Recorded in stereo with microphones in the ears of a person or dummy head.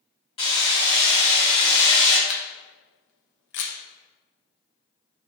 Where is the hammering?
20° left (ahead or behind), 0.9 m.